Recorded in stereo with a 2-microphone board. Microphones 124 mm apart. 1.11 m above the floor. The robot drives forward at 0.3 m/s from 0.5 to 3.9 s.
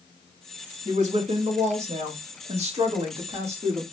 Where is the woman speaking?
75° right (ahead or behind), 1.7 m; by 3.8 s 55° right (ahead or behind), 2 m.